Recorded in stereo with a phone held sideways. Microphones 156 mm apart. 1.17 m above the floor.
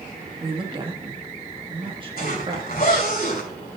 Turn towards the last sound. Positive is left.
turn(degrees=75)  # may be behind; listen again after turning